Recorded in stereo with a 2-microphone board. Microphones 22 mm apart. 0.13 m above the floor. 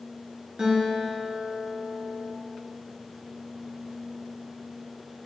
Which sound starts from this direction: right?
A guitar, at 0.6 s.